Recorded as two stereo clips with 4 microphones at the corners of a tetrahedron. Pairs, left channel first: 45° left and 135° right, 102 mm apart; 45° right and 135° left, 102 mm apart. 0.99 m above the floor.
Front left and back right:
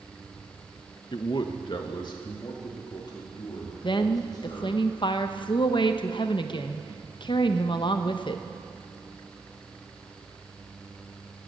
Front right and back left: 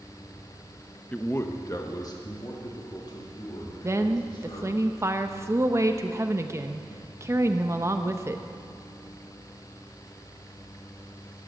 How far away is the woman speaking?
About 0.7 m.